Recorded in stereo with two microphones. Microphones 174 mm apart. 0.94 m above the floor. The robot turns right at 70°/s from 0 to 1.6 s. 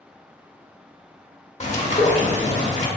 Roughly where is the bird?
Left.